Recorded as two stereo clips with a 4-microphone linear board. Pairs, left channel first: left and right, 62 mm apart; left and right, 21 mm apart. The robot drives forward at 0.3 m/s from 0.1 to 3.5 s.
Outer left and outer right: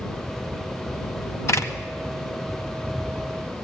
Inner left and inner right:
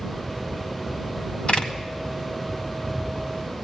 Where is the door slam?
50° left (ahead or behind), 1.8 m.